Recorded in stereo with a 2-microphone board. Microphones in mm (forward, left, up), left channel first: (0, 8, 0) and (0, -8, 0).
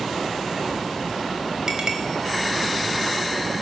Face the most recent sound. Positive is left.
turn(degrees=-45)  # may be behind; listen again after turning